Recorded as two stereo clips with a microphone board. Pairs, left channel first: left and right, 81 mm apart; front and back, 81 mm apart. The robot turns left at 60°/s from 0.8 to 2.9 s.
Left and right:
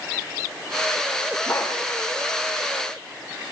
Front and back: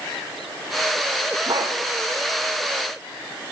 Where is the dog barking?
150° left, 3.5 m; by 1.8 s 135° left, 3.5 m.